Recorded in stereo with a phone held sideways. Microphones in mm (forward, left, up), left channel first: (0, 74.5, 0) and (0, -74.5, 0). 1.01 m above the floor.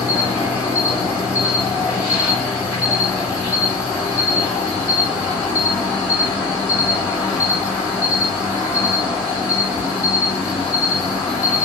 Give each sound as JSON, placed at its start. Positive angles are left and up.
{"t": 0.0, "sound": "an insect", "side_deg": -10, "distance_m": 1.7}